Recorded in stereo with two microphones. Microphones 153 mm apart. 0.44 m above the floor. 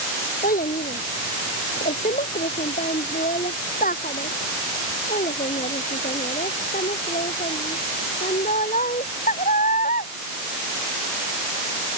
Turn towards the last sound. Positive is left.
turn(degrees=60)  # may be behind; listen again after turning